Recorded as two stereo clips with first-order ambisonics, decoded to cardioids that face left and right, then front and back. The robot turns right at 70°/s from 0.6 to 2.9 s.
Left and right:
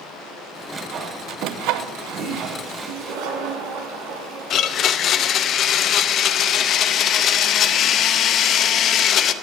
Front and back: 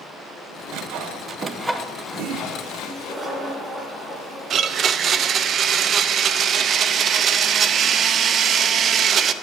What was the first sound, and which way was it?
Sawing, 165° right.